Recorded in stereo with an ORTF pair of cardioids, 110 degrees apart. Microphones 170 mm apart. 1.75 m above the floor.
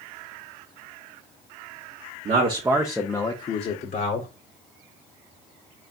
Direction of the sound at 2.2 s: 40° right.